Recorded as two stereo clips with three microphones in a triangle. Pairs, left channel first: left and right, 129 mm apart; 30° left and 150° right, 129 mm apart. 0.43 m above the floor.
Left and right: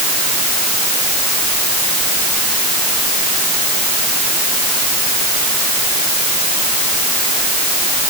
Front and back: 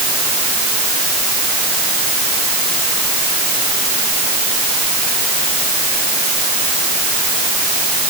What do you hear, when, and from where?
Only background noise.